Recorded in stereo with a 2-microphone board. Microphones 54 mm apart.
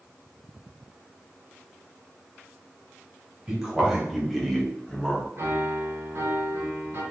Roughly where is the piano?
Right.